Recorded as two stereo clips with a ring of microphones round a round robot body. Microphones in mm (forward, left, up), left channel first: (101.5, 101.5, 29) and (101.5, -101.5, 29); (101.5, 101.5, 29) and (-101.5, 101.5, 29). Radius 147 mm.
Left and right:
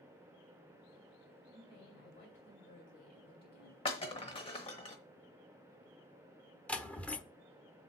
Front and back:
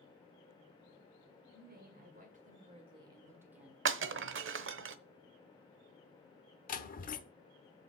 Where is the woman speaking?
160° left, 2.5 m; by 3.8 s 95° left, 1.9 m.